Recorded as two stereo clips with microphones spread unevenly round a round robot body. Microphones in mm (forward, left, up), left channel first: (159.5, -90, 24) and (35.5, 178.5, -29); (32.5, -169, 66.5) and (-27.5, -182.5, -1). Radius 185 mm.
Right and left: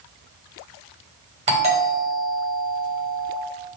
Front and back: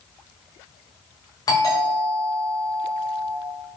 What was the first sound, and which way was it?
A doorbell, 110° left.